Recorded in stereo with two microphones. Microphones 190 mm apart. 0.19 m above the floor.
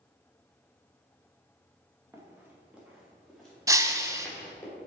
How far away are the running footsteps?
About 2.5 m.